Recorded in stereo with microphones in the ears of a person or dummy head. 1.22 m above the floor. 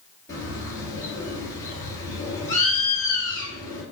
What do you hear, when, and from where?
0.3 s a bird: 20° left (ahead or behind), 2.5 m